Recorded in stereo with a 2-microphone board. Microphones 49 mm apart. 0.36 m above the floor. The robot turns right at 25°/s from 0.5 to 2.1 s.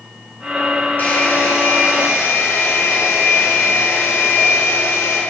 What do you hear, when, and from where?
1.0 s a hair dryer: 40° left (ahead or behind), 5 m; by 5.2 s 65° left (ahead or behind), 5 m